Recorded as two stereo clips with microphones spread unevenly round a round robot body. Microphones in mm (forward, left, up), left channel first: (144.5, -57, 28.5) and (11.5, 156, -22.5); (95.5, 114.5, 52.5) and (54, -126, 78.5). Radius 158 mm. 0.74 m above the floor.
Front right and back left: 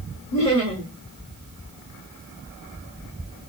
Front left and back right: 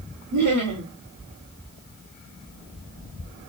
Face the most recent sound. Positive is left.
turn(degrees=-115)